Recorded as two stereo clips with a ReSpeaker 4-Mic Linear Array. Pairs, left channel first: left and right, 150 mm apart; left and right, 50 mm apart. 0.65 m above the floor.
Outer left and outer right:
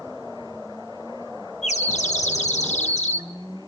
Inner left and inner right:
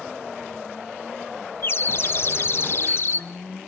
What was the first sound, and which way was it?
A bird, 50° left (ahead or behind).